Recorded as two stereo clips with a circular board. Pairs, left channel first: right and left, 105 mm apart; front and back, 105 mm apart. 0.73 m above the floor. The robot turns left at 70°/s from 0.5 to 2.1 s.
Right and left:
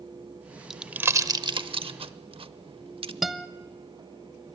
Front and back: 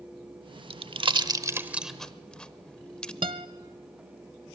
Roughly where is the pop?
Behind.